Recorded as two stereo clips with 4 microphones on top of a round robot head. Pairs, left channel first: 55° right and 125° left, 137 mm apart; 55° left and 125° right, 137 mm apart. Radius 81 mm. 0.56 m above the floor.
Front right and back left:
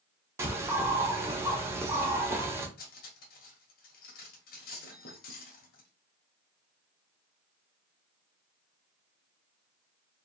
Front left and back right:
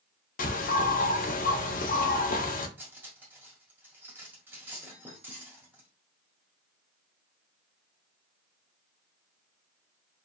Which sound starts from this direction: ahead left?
A bird, at 0.4 s.